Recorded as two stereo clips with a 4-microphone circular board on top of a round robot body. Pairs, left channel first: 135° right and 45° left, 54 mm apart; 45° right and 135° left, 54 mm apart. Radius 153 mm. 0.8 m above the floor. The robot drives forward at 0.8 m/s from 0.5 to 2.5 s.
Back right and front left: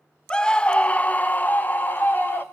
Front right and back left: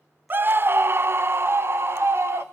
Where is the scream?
160° left, 0.7 m; by 2.4 s 175° left, 2 m.